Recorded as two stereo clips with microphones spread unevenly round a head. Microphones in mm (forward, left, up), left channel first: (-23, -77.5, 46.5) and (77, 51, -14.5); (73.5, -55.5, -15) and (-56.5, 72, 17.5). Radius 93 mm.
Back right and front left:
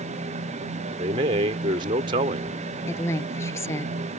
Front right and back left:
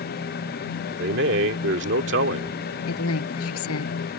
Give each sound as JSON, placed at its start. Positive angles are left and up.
{"t": 1.0, "sound": "a man speaking", "azimuth_deg": 110}
{"t": 2.9, "sound": "a woman speaking", "azimuth_deg": -55}